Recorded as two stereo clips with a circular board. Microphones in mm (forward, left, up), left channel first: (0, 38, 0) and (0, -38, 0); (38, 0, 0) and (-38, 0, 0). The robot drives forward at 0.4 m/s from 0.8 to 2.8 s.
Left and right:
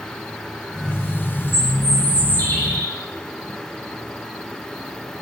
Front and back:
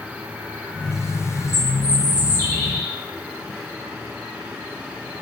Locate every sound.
1.5 s a bird: 140° left, 1.2 m; by 2.9 s 150° left, 1.6 m